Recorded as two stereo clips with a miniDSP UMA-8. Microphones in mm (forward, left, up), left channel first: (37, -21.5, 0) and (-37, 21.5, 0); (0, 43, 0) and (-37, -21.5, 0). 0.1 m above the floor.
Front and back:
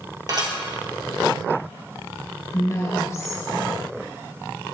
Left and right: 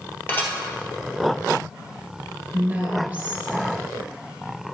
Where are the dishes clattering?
120° left, 1.7 m.